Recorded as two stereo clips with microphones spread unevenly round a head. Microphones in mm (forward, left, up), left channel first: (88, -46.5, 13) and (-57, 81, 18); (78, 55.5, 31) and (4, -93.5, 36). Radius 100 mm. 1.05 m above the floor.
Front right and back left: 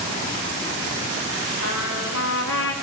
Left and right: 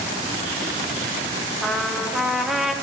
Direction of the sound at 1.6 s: 25° right.